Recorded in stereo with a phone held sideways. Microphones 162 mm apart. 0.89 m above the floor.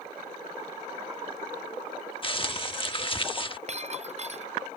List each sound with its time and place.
2.2 s crumpling: 35° left (ahead or behind)
3.7 s breaking glass: 45° right (ahead or behind)